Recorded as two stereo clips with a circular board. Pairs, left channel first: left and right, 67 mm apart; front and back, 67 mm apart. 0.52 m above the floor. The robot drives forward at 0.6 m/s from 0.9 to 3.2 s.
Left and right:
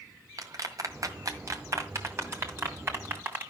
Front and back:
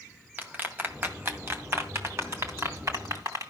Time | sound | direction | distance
0.4 | a clap | 120° right | 1.9 m